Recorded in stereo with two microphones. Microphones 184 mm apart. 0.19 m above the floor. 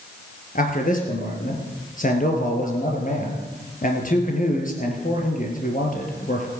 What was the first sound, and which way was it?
A man speaking, 45° left (ahead or behind).